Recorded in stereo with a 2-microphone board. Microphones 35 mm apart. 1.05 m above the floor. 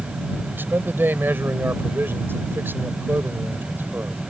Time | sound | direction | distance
0.5 | a man speaking | 75° right (ahead or behind) | ?